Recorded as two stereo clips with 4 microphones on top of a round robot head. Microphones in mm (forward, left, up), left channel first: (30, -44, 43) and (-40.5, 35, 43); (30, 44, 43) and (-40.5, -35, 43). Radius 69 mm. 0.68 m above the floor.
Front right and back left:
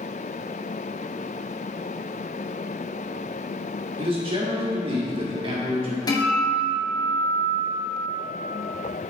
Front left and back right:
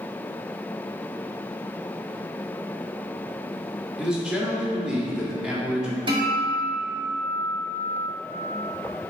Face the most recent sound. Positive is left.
turn(degrees=-95)